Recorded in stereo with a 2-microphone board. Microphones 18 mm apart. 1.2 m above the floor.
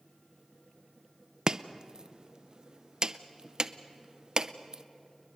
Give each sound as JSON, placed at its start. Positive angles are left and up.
{"t": 1.5, "sound": "chopping", "side_deg": -40, "distance_m": 0.6}